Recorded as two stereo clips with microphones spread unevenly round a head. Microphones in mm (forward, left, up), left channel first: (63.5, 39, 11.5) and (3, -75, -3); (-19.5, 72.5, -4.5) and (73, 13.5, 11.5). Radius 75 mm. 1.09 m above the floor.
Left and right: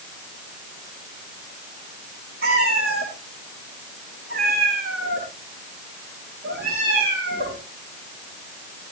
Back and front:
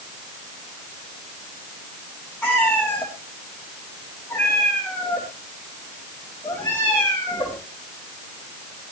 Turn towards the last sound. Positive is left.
turn(degrees=-125)